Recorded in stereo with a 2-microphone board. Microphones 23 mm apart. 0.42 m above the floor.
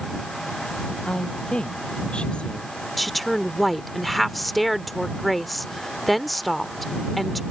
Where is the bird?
No bird in this recording.